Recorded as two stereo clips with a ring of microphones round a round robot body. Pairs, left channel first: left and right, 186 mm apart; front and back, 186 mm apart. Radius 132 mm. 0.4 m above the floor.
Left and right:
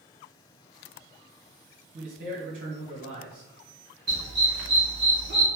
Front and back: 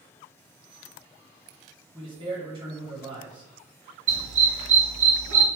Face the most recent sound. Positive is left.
turn(degrees=-145)